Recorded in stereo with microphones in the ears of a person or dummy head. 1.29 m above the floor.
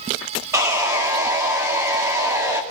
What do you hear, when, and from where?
0.5 s sawing: 15° right (ahead or behind), 2.5 m